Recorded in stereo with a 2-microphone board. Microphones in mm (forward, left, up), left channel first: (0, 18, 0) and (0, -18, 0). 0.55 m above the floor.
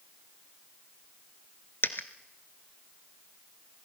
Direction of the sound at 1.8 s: 70° left (ahead or behind).